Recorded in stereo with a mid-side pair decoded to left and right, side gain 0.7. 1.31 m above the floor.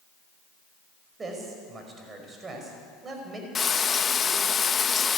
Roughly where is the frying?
Ahead left.